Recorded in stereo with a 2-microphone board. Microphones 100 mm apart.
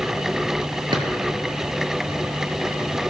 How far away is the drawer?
About 1.4 m.